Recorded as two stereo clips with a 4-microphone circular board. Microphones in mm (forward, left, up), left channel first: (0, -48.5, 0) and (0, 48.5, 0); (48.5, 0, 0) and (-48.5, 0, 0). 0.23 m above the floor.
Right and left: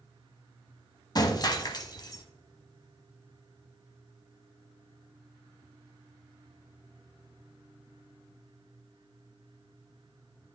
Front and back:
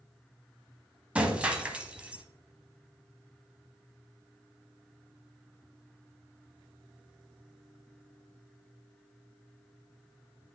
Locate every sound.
1.1 s breaking glass: 105° right, 0.8 m